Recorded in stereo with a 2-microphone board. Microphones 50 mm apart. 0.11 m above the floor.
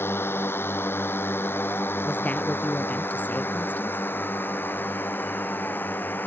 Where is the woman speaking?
35° left (ahead or behind).